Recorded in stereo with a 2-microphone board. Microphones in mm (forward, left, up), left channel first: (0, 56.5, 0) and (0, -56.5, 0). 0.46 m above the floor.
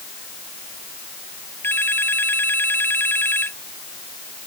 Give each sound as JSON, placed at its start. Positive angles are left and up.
{"t": 1.6, "sound": "a phone ringing", "side_deg": 20}